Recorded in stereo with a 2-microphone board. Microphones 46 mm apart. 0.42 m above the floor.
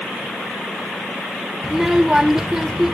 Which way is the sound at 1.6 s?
10° right (ahead or behind).